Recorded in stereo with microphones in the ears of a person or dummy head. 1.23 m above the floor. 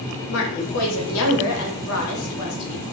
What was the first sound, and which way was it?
A woman speaking, 70° left (ahead or behind).